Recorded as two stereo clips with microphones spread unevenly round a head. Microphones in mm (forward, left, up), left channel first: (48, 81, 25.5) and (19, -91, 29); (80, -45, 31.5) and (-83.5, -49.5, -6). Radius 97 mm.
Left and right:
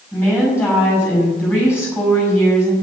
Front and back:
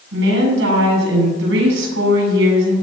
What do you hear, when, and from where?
0.1 s a woman speaking: 160° left, 7 m